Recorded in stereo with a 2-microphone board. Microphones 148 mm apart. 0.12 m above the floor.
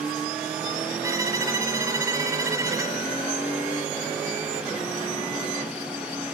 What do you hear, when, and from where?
1.0 s a violin: 20° right (ahead or behind), 1.2 m